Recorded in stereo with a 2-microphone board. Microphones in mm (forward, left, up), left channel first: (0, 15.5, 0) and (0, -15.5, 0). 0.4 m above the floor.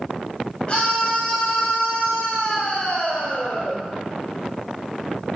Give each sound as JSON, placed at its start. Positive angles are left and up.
{"t": 0.7, "sound": "a scream", "side_deg": 30, "distance_m": 2.0}